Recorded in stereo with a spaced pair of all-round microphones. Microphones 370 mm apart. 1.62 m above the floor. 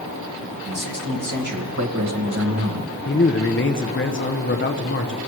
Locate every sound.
0.6 s a man speaking: 60° right (ahead or behind), 2.5 m; by 3.0 s 25° right (ahead or behind), 1.3 m
3.0 s a man speaking: 30° left (ahead or behind), 0.7 m